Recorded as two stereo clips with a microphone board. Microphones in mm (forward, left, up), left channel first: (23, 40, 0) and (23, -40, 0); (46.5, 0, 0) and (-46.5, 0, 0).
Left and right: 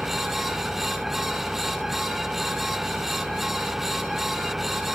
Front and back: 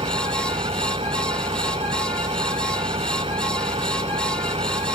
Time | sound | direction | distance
0.0 | an engine running | 175° right | ?